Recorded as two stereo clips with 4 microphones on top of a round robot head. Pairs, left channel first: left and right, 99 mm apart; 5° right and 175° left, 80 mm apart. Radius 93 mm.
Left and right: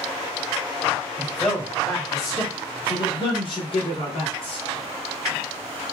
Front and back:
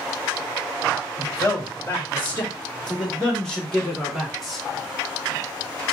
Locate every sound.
1.2 s a man speaking: 5° left, 1.3 m; by 4.7 s 90° left, 2.5 m